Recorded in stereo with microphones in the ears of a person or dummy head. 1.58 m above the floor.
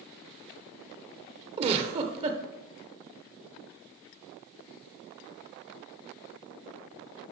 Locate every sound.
1.6 s a giggle: 30° right (ahead or behind), 1.1 m